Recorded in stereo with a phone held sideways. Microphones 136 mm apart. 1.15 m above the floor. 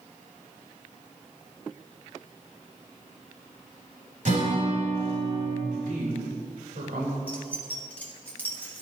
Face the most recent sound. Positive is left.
turn(degrees=10)  # may be behind; listen again after turning